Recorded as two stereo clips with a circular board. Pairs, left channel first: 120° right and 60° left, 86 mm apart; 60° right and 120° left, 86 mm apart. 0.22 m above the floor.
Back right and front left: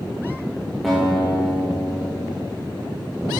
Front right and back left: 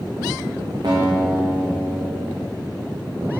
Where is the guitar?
150° left, 3.5 m.